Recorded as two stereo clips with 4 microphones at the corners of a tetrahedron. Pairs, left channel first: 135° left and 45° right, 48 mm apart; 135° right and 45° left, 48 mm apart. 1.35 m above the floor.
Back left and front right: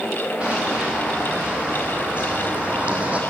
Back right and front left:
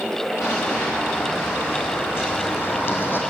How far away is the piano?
I don't hear a piano.